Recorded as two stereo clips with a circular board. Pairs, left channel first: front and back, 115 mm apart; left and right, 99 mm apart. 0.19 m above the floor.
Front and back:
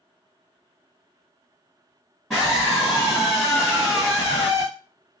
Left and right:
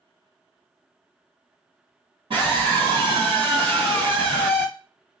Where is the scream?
80° right, 1.8 m.